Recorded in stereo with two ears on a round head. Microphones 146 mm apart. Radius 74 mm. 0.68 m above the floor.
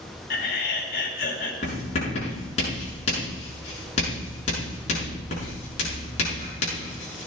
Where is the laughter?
55° left (ahead or behind), 3.5 m.